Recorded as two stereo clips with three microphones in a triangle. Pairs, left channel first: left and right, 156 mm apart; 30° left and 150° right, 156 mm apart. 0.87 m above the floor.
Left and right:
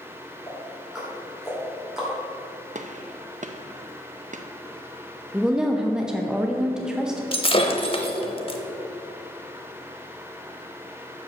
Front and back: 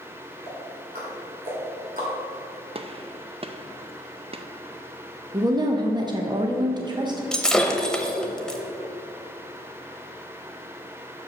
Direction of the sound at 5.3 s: 170° right.